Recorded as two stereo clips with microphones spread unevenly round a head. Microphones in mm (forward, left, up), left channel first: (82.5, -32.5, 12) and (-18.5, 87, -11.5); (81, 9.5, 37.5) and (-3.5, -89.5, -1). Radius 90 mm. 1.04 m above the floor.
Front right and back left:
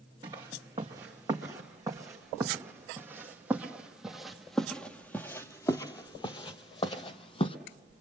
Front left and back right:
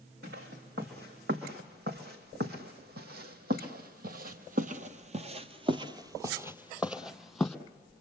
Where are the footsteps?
160° right, 3.5 m; by 7.6 s 20° right, 1.6 m.